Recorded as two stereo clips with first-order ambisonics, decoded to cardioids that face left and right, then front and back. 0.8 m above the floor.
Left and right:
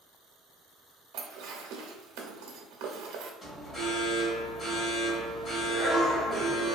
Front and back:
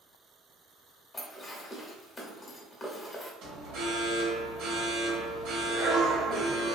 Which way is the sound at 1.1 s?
70° right.